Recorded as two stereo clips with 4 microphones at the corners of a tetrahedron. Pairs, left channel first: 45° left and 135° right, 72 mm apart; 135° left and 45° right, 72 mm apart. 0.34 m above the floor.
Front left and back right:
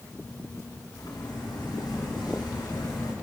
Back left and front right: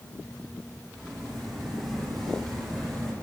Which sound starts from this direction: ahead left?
Footsteps, at 0.9 s.